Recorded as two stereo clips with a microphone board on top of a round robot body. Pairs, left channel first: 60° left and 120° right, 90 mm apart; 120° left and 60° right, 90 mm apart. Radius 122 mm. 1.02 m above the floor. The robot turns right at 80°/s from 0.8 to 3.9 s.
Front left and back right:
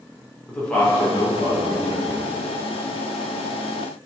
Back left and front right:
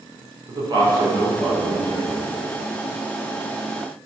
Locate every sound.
0.5 s a man speaking: 20° right, 3 m; by 2.2 s 95° left, 3 m